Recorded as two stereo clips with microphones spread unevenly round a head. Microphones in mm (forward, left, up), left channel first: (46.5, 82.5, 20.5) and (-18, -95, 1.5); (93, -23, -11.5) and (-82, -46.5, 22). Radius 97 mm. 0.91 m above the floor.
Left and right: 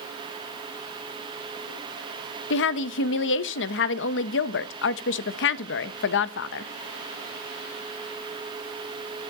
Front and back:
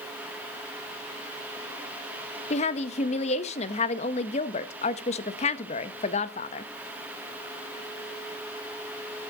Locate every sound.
2.5 s a woman speaking: 55° left, 0.8 m